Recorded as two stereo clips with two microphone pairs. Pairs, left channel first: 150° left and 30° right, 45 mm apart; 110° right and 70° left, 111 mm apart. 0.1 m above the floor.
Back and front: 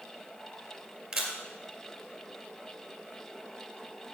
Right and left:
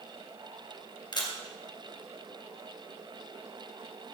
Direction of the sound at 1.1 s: 105° right.